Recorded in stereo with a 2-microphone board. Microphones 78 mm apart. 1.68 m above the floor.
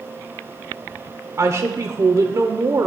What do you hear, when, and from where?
1.4 s a woman speaking: 45° right (ahead or behind), 0.8 m